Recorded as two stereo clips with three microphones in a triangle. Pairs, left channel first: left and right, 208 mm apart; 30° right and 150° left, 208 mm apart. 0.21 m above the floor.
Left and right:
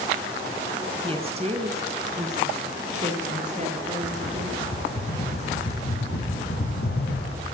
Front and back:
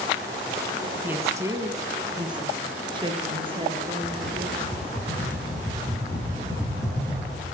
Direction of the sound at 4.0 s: 45° left.